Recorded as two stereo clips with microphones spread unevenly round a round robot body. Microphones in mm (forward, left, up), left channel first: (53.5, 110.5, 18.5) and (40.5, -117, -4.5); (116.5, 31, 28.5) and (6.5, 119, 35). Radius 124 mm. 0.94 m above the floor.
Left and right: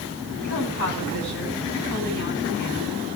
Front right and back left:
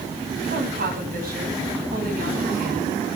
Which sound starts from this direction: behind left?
A woman speaking, at 0.4 s.